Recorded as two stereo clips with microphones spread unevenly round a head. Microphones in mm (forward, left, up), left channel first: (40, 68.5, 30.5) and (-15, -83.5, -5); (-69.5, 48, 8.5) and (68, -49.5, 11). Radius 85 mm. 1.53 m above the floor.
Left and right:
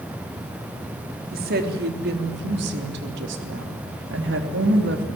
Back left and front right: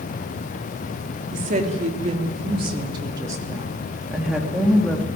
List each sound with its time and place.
1.3 s a woman speaking: 80° right, 3.5 m; by 5.1 s 135° right, 3 m